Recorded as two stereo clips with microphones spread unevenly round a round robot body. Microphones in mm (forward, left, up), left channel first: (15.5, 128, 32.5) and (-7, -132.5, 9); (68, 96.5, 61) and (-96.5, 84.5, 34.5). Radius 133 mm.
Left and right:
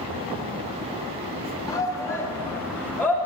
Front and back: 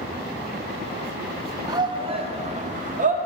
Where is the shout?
160° left, 0.8 m; by 3.1 s 170° left, 1.3 m.